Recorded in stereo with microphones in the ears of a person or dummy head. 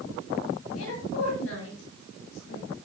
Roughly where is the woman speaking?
Left.